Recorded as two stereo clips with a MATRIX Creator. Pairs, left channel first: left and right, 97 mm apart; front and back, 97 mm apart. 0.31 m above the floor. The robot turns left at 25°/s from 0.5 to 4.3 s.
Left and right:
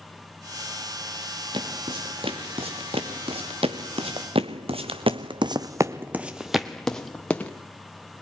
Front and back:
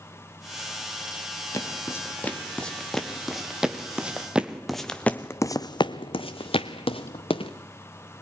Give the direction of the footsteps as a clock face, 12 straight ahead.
2 o'clock.